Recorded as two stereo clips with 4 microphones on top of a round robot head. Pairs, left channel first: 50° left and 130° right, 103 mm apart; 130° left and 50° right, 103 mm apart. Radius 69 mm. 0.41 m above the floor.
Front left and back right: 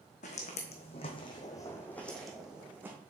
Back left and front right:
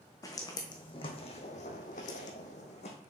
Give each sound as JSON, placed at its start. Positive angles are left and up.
{"t": 0.2, "sound": "footsteps", "azimuth_deg": 70, "distance_m": 1.4}